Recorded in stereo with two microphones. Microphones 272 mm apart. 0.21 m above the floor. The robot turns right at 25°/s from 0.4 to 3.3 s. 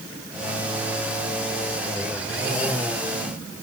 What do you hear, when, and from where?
Only background noise.